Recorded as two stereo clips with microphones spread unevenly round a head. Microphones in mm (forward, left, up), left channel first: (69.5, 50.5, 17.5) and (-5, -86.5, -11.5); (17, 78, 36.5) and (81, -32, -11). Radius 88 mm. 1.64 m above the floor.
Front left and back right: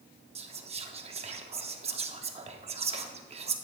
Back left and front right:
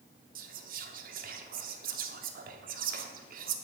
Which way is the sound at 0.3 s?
65° right.